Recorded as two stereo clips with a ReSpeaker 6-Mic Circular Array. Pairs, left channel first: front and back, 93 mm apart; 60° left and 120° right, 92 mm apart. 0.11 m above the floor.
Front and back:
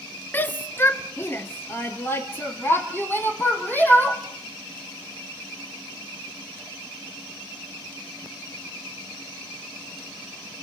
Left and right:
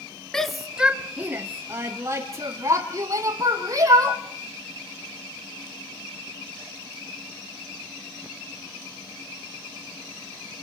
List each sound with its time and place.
0.3 s a shout: 10° right, 1.1 m; by 4.2 s 70° right, 4 m